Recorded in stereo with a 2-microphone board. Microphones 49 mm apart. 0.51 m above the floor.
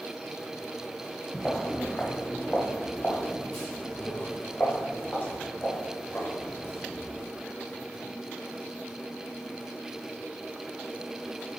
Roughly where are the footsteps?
Centre.